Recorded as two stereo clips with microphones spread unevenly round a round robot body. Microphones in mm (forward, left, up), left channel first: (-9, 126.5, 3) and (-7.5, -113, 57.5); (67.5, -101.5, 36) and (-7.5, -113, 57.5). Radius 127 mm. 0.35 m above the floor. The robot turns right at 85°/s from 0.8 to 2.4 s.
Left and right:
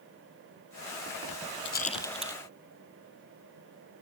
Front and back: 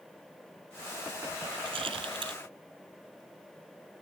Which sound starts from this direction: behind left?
A rattle, at 1.6 s.